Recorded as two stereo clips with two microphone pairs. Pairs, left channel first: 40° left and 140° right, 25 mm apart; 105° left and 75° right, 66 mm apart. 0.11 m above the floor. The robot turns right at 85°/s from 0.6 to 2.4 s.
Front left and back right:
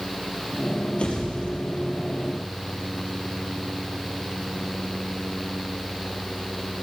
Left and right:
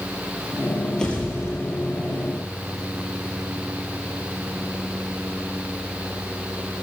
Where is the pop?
25° left, 3 m; by 1.8 s 100° left, 3 m.